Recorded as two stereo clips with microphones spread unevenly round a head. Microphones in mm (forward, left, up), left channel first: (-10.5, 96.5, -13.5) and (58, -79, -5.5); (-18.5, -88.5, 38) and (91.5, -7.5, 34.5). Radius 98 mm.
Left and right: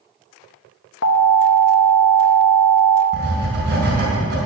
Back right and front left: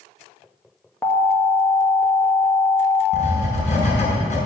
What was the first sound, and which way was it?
An alarm, 140° left.